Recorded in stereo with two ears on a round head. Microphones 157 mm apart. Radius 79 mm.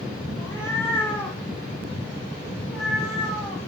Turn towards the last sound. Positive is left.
turn(degrees=0)  # may be behind; listen again after turning